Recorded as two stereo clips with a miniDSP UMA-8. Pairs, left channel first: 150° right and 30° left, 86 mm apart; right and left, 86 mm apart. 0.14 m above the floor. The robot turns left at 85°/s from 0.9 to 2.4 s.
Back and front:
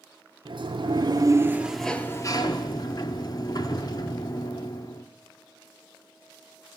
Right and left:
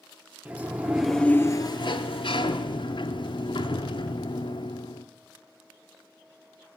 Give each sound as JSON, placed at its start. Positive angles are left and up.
{"t": 0.5, "sound": "a sliding door", "azimuth_deg": 20, "distance_m": 0.7}